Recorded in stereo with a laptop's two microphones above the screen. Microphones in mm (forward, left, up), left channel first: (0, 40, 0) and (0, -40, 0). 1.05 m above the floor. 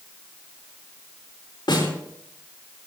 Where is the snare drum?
70° left (ahead or behind), 4 m.